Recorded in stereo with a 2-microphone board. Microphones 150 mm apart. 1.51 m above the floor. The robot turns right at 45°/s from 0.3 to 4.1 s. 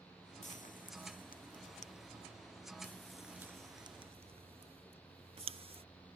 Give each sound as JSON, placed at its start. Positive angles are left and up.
{"t": 0.4, "sound": "frying", "side_deg": 60}